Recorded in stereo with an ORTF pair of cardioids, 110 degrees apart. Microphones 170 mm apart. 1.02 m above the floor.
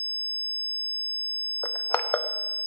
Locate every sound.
1.6 s crushing: 15° left, 0.8 m